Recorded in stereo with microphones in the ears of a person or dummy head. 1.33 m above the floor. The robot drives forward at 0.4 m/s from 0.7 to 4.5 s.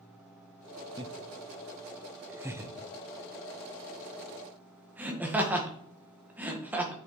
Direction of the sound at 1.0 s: 20° right (ahead or behind).